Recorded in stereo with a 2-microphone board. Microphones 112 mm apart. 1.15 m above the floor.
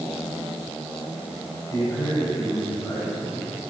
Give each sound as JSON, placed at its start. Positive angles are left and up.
{"t": 1.7, "sound": "a man speaking", "side_deg": 35, "distance_m": 6.0}